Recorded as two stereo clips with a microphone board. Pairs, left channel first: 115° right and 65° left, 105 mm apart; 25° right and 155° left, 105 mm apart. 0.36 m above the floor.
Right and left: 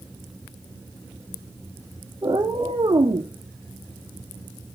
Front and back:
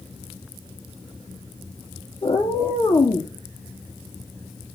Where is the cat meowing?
15° left, 2.5 m; by 3.3 s 30° left, 2.5 m.